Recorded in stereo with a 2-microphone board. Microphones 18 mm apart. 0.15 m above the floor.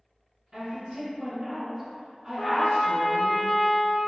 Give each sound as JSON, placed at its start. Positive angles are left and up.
{"t": 0.5, "sound": "a woman speaking", "side_deg": -30, "distance_m": 1.7}
{"t": 2.4, "sound": "a trumpet", "side_deg": 40, "distance_m": 0.5}